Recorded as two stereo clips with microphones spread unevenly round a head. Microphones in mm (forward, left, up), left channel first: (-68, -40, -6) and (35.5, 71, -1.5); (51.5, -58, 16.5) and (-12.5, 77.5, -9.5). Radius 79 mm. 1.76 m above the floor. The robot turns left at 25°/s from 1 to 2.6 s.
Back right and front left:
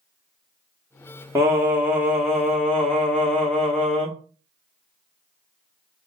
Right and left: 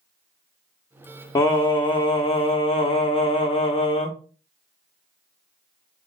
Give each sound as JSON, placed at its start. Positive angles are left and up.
{"t": 1.4, "sound": "singing", "azimuth_deg": -15, "distance_m": 0.8}